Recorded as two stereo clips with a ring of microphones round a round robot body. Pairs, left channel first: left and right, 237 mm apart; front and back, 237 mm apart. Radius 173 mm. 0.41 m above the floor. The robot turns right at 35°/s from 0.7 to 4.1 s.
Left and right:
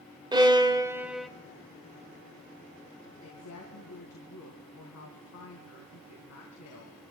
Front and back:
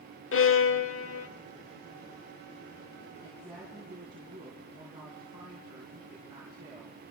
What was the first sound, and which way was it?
A violin, 20° right.